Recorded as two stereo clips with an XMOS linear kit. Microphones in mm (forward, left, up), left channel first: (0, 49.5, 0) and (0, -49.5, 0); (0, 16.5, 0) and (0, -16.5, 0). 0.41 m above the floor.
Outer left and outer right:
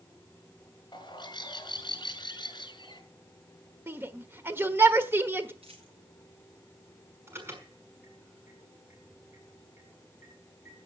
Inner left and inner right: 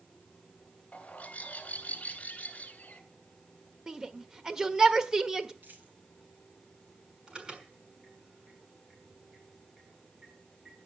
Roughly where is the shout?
Right.